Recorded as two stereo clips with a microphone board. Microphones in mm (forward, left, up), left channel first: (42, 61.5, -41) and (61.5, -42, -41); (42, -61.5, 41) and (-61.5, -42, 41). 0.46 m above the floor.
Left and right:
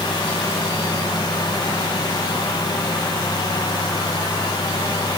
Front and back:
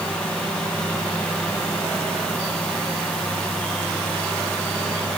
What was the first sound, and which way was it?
Only background noise.